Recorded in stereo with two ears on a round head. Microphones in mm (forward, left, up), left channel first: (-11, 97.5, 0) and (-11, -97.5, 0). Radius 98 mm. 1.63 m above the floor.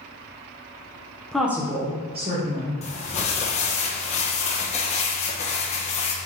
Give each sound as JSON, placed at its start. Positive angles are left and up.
{"t": 1.3, "sound": "a woman speaking", "side_deg": 5, "distance_m": 1.1}
{"t": 2.8, "sound": "crumpling", "side_deg": 30, "distance_m": 1.0}